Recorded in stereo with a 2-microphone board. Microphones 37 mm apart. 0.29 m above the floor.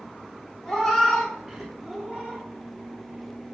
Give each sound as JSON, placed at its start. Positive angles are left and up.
{"t": 0.7, "sound": "a cat meowing", "side_deg": 10, "distance_m": 1.7}